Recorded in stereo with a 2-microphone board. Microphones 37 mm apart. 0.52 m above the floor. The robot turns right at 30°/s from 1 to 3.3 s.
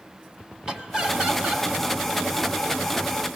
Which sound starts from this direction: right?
Laughter, at 0.7 s.